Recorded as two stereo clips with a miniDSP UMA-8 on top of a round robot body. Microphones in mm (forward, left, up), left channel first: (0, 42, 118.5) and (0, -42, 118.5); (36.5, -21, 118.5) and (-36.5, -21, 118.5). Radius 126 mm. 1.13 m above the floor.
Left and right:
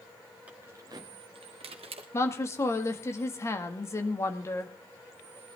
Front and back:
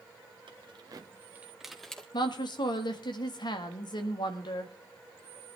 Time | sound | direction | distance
0.5 | keys jangling | 165° right | 1.4 m
2.1 | a woman speaking | 30° left | 1.8 m